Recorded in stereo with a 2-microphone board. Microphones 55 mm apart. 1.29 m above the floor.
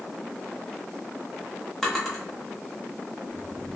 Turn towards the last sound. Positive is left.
turn(degrees=5)  # may be behind; listen again after turning